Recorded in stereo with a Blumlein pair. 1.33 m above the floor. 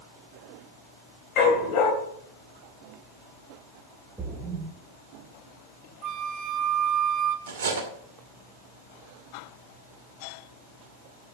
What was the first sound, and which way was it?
A dog barking, 40° left.